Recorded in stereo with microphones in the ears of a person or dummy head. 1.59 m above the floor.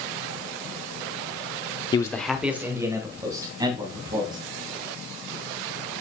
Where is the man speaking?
25° left (ahead or behind), 0.6 m; by 4.4 s 25° right (ahead or behind), 3.5 m.